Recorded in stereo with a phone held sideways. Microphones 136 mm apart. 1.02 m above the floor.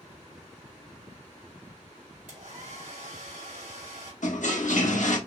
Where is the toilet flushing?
70° left (ahead or behind), 0.8 m.